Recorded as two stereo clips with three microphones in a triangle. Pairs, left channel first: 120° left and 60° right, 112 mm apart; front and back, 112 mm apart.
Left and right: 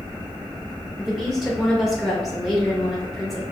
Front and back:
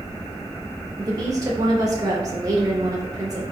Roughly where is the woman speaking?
Behind right.